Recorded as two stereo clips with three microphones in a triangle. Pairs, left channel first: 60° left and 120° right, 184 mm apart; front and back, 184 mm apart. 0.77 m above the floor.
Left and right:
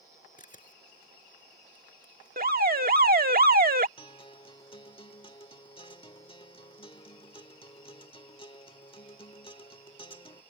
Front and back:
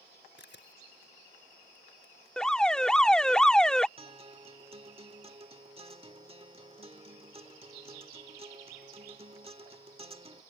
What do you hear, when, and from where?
0.4 s a camera shutter: 15° left
2.4 s an alarm: 85° right
4.0 s a guitar: 120° left